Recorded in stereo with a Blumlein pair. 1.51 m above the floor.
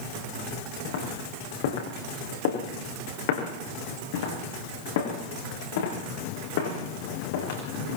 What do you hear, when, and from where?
0.8 s footsteps: 55° left, 7.5 m